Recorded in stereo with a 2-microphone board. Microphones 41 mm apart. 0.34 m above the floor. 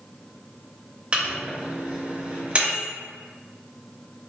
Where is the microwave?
30° right (ahead or behind), 0.7 m.